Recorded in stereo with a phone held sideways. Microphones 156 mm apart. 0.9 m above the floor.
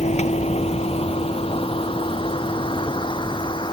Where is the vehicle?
45° left (ahead or behind); by 3.7 s 30° left (ahead or behind).